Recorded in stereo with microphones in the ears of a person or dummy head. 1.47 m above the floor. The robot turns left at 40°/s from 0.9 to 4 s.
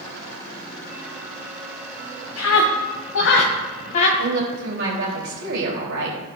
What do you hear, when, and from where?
2.4 s a scream: 75° left (ahead or behind), 1.3 m; by 4.1 s 40° left (ahead or behind), 1.3 m
4.2 s a woman speaking: 75° right (ahead or behind), 3.5 m